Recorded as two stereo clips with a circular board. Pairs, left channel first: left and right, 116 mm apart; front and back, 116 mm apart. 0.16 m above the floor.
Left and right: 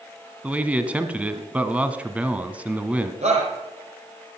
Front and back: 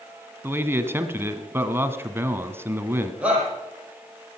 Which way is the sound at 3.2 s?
100° right.